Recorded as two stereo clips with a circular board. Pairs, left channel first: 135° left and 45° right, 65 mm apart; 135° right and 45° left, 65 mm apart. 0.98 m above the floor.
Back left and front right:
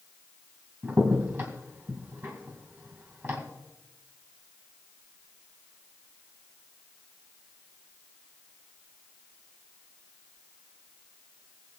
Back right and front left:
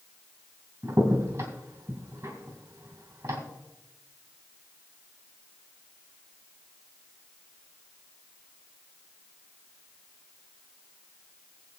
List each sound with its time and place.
0.8 s a crack: 5° left, 2.5 m